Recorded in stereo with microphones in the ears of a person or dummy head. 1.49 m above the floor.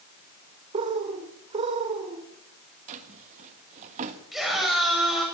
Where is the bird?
25° right (ahead or behind), 1.9 m.